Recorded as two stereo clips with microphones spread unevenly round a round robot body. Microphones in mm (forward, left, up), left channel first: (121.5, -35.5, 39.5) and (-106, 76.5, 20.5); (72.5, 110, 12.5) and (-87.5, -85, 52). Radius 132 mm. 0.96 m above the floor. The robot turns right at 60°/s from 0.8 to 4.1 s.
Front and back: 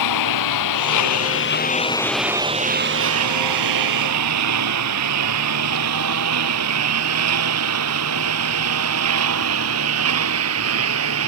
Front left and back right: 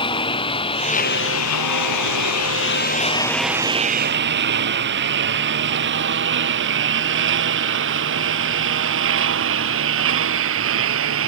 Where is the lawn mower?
20° right; by 11.3 s 170° right.